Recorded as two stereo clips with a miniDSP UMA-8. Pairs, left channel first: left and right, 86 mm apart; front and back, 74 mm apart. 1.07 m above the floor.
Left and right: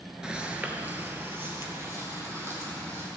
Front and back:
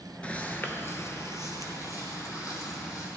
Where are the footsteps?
25° right, 1.0 m; by 3.1 s 35° right, 3 m.